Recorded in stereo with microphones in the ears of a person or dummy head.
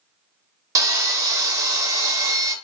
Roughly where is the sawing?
Centre.